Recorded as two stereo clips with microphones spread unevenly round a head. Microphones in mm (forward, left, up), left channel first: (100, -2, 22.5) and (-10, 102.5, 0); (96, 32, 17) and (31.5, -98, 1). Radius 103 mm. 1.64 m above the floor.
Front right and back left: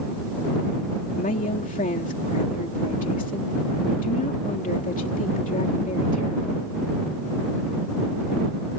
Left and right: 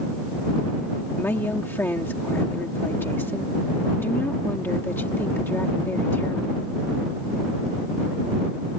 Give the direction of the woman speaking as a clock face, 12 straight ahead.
12 o'clock.